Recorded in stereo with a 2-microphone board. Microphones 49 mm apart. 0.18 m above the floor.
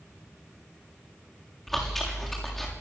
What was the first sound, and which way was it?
Chewing, 5° left (ahead or behind).